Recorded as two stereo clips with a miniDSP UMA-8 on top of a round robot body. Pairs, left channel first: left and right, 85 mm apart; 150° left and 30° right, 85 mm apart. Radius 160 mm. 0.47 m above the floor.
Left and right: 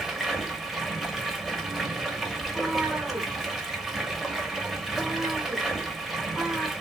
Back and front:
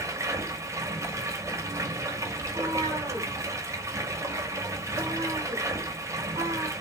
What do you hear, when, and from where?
0.0 s running water: 5° right, 0.8 m
2.4 s a cat meowing: 15° right, 0.8 m